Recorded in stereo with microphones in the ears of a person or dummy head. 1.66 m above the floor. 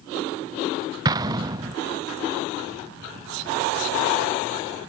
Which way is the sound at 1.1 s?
25° right (ahead or behind).